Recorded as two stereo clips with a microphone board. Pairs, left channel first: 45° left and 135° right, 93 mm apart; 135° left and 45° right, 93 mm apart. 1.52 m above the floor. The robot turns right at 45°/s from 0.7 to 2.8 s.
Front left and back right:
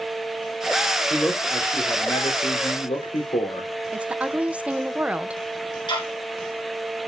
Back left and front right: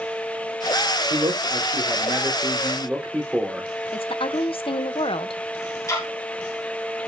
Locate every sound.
1.1 s a man speaking: 40° right, 4 m; by 3.7 s 35° left, 4 m
3.9 s a woman speaking: 150° left, 0.9 m
5.9 s ticking: 80° left, 3 m